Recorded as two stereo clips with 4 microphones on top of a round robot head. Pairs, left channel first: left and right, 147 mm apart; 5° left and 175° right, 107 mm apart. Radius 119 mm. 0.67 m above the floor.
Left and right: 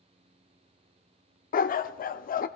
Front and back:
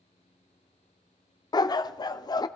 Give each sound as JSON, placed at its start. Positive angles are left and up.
{"t": 1.5, "sound": "a dog barking", "azimuth_deg": 60, "distance_m": 0.6}